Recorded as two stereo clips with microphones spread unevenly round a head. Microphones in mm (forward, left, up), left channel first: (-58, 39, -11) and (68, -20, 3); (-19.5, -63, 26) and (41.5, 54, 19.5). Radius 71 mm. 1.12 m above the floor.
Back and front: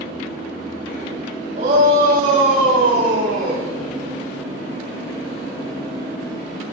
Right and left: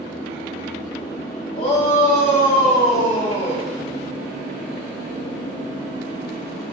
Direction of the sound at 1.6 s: 70° right.